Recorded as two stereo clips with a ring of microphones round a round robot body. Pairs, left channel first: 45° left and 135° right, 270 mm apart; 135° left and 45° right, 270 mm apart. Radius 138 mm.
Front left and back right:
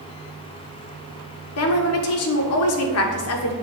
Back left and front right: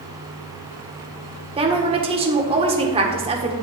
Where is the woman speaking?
25° left, 1.5 m.